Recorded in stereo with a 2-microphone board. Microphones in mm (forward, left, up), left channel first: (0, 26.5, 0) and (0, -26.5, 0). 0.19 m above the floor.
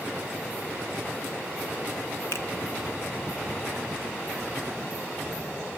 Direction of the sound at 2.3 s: 55° left (ahead or behind).